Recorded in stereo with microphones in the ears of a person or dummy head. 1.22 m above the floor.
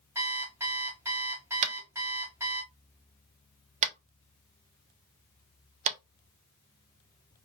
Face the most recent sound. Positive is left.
turn(degrees=-40)  # may be behind; listen again after turning